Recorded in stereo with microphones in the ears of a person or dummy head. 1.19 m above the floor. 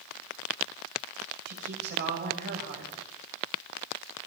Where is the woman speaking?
55° right (ahead or behind), 6.5 m.